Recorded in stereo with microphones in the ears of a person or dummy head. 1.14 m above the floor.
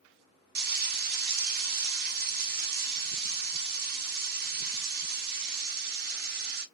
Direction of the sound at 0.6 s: 55° right (ahead or behind).